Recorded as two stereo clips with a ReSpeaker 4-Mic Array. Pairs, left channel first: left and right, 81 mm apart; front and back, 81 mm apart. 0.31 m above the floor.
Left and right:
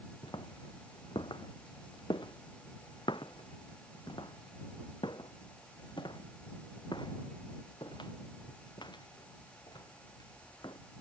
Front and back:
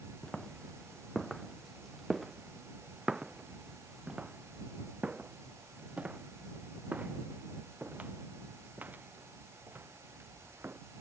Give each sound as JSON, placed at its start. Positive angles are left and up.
{"t": 0.2, "sound": "footsteps", "azimuth_deg": 80}